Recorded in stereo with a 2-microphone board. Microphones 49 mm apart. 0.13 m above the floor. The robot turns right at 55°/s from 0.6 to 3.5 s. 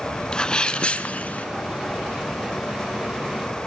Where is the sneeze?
20° left (ahead or behind), 1.2 m; by 1.5 s 30° left (ahead or behind), 1.2 m.